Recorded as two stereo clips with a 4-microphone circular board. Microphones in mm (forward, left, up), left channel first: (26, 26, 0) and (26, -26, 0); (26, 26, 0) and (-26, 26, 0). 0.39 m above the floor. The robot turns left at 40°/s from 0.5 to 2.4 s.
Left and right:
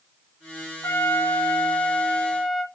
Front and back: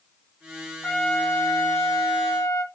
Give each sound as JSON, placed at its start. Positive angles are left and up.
{"t": 0.8, "sound": "a trumpet", "azimuth_deg": 65, "distance_m": 0.7}